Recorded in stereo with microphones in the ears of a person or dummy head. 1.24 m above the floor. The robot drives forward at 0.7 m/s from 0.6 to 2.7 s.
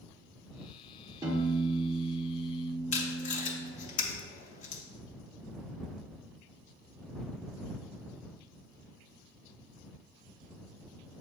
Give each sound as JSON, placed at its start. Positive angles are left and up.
{"t": 1.2, "sound": "a piano", "side_deg": -20, "distance_m": 1.1}
{"t": 2.9, "sound": "tape being pulled", "side_deg": 40, "distance_m": 0.6}